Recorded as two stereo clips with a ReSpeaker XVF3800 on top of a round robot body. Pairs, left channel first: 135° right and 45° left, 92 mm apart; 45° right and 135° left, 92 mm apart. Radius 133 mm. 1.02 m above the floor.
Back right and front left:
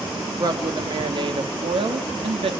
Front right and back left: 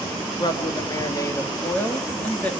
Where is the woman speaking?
Straight ahead, 2 m; by 2.5 s 30° left, 2 m.